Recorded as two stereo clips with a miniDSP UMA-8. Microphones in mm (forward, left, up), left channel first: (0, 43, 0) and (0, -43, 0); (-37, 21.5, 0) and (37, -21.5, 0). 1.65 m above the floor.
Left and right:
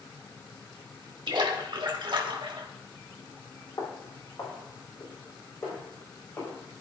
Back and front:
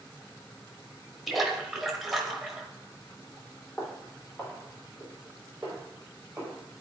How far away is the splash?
About 1.3 m.